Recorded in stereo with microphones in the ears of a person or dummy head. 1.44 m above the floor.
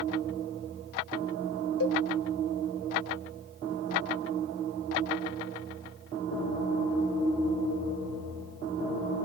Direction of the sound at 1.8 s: 70° left (ahead or behind).